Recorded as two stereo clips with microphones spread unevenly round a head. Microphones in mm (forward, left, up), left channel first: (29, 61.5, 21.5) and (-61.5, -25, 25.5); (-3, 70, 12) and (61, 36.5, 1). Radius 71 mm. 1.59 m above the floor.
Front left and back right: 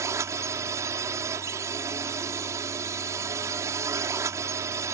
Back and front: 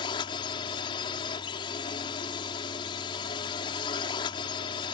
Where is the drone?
155° left.